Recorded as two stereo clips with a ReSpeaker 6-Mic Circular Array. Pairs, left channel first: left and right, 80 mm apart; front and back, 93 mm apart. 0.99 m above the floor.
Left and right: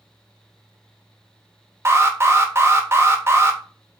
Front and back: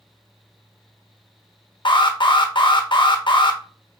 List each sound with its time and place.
1.9 s an alarm: 30° right, 0.7 m